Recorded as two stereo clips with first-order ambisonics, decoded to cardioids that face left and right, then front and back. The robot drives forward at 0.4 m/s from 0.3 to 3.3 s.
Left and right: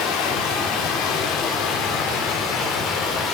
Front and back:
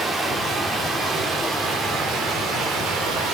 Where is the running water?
105° left, 2 m; by 3.4 s 130° left, 2.5 m.